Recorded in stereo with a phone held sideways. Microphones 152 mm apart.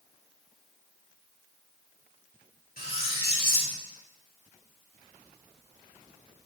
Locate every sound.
2.8 s cutlery clinking: 80° left, 1.8 m